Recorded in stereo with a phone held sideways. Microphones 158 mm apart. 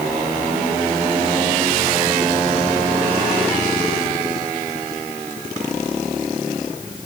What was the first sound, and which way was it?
Only background noise.